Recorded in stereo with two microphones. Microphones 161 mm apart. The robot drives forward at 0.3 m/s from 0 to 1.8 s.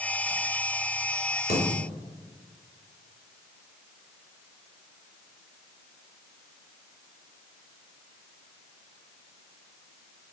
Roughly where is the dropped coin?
Left.